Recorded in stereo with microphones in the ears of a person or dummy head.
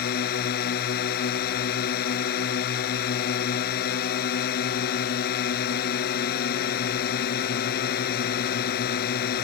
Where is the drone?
55° left (ahead or behind).